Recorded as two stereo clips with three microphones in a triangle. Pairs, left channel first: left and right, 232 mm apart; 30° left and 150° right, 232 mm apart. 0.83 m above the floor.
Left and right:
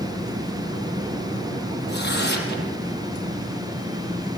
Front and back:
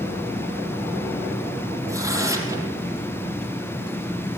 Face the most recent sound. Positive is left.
turn(degrees=135)